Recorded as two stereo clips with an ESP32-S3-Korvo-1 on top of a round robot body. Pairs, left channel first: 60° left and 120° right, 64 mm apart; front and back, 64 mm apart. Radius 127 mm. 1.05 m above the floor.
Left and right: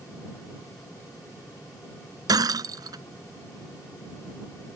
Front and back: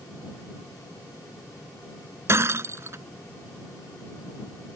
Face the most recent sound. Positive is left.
turn(degrees=-135)